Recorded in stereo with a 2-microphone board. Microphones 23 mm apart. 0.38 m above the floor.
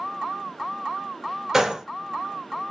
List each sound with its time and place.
1.5 s a gunshot: 20° right (ahead or behind), 0.8 m